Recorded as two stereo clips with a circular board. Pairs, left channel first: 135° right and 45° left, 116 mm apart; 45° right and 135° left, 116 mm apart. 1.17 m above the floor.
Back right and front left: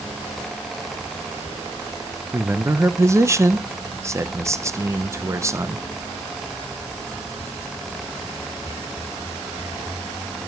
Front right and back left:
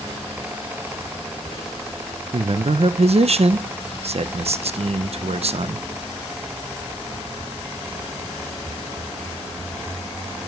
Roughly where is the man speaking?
Left.